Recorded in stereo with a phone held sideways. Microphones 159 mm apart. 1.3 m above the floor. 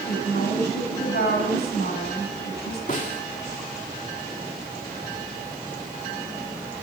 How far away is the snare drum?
About 3 m.